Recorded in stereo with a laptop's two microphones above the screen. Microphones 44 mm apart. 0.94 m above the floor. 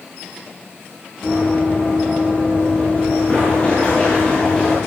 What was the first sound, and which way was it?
Running footsteps, 40° left (ahead or behind).